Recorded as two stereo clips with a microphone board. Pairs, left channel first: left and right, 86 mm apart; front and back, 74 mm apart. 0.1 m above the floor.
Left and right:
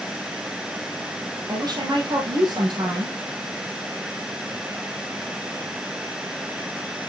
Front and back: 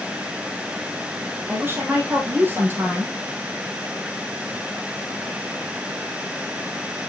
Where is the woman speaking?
120° right, 3 m.